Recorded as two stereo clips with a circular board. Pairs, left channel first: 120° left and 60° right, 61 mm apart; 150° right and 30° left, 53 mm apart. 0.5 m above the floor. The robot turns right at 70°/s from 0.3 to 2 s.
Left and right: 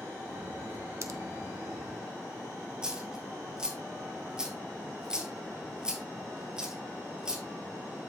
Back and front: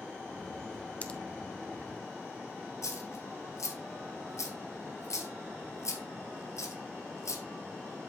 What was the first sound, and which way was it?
A pop, 95° right.